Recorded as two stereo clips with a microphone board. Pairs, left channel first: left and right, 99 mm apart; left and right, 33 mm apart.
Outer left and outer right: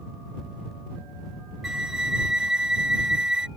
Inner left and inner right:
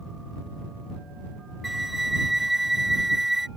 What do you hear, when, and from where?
1.6 s a flute: 5° right (ahead or behind)